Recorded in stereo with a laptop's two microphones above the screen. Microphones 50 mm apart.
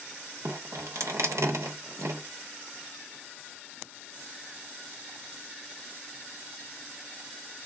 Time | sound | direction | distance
0.5 | dripping | 85° right | 0.8 m